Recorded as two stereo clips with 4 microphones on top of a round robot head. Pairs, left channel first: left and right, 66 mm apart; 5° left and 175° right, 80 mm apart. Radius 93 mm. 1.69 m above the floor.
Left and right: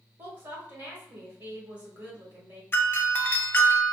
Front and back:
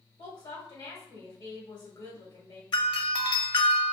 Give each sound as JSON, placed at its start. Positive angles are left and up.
{"t": 0.2, "sound": "a woman speaking", "azimuth_deg": -50, "distance_m": 1.1}
{"t": 2.7, "sound": "a doorbell", "azimuth_deg": 30, "distance_m": 0.5}